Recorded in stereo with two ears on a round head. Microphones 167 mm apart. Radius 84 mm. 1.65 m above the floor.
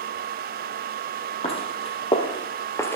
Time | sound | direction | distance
1.4 | footsteps | 35° left (ahead or behind) | 2.5 m